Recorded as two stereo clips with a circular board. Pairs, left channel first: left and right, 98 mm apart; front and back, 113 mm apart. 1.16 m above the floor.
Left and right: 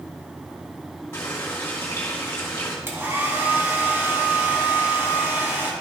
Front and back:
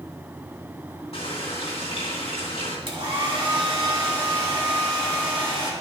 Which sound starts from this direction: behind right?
A hair dryer, at 2.9 s.